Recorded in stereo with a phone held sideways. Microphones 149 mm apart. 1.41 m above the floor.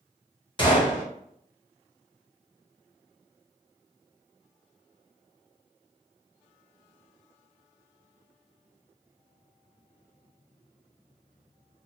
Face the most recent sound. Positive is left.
turn(degrees=30)  # may be behind; listen again after turning